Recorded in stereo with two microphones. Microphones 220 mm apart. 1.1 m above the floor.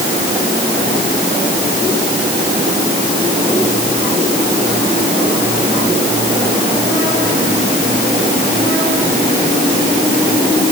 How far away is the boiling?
No boiling in this recording.